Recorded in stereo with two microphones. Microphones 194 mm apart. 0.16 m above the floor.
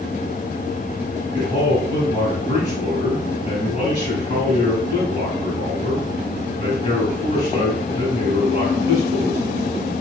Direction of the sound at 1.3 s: 35° left (ahead or behind).